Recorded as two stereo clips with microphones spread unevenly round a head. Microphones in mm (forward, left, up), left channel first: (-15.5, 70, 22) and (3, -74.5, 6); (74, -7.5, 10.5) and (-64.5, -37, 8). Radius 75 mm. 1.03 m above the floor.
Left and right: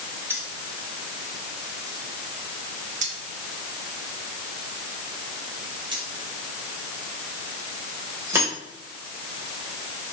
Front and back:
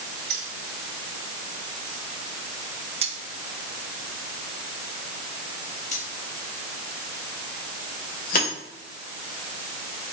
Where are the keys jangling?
160° right, 2.5 m; by 8.5 s 10° right, 3 m.